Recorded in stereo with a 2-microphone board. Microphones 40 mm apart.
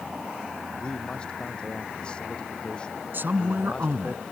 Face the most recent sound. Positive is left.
turn(degrees=-55)  # may be behind; listen again after turning